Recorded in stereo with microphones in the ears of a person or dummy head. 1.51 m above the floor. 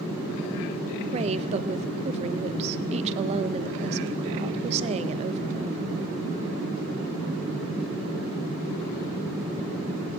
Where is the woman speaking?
35° right (ahead or behind), 0.6 m.